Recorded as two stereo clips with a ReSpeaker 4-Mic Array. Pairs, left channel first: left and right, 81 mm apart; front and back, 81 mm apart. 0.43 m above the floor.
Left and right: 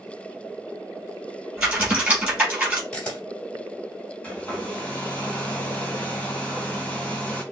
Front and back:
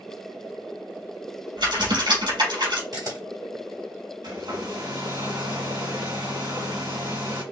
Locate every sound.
1.6 s typing on a keyboard: 170° right, 4 m
2.9 s a camera shutter: 165° left, 2 m
4.2 s a hair dryer: 160° left, 2 m